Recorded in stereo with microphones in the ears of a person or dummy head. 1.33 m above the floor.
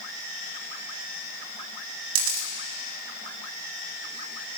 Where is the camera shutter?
70° right (ahead or behind), 1.5 m.